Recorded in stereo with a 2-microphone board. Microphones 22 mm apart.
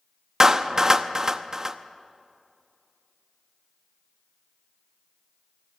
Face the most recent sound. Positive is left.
turn(degrees=-25)  # may be behind; listen again after turning